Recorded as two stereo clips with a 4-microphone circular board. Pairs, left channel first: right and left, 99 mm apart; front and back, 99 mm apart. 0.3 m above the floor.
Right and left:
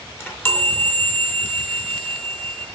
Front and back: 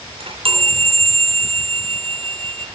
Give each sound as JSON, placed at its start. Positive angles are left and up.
{"t": 0.2, "sound": "a chime", "azimuth_deg": -160, "distance_m": 3.0}